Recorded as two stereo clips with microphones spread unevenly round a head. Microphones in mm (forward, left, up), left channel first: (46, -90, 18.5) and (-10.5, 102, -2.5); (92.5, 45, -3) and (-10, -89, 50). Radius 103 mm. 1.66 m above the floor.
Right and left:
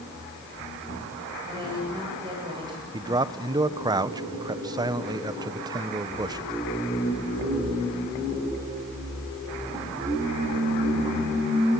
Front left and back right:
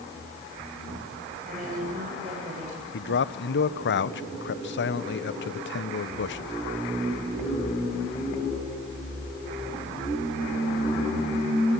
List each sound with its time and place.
1.5 s a woman speaking: 175° left, 9 m
2.9 s a man speaking: 35° left, 1.1 m